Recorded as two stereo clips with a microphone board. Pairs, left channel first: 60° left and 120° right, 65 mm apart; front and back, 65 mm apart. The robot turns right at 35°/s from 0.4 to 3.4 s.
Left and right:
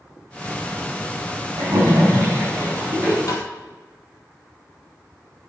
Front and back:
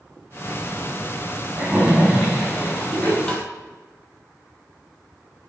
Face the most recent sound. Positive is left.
turn(degrees=75)